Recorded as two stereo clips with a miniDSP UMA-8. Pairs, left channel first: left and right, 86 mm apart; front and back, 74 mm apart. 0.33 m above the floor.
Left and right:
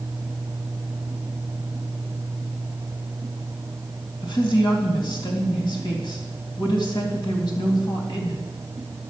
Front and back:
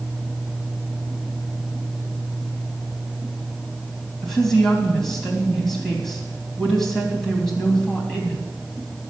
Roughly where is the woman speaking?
Left.